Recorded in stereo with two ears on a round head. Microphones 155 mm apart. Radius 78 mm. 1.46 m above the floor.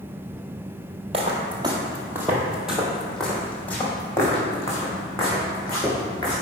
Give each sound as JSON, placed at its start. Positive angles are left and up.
{"t": 1.1, "sound": "footsteps", "side_deg": -35, "distance_m": 1.7}